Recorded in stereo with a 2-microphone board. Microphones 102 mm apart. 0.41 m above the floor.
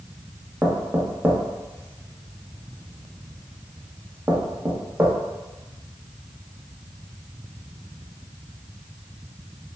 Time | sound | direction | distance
0.6 | knocking | 20° right (ahead or behind) | 0.6 m